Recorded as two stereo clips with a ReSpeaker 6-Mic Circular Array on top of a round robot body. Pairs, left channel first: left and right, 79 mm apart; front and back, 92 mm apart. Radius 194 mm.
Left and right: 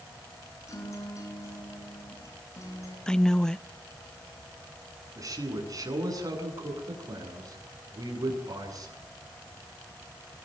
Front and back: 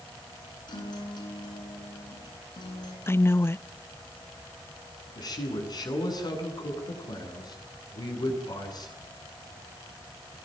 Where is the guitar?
40° left, 8.5 m.